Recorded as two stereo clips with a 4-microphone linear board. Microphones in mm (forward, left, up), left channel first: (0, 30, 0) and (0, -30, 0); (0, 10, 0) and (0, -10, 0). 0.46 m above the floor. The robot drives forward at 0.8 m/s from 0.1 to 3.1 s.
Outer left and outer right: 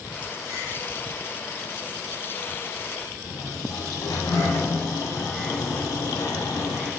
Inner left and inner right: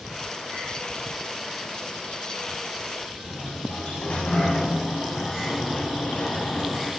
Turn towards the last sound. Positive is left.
turn(degrees=65)  # may be behind; listen again after turning